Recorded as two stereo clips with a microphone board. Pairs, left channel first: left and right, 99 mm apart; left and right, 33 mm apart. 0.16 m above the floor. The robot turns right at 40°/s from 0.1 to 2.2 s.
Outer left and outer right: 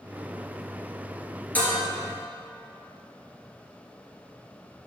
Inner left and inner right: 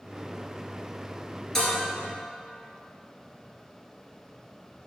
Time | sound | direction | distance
1.6 | dishes clattering | 15° left (ahead or behind) | 2 m